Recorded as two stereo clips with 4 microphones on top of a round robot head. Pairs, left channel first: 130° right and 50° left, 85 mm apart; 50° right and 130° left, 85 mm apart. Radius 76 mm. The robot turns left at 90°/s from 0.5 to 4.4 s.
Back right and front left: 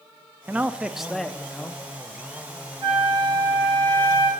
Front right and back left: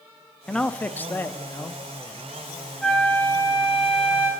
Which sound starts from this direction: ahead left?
A flute, at 2.8 s.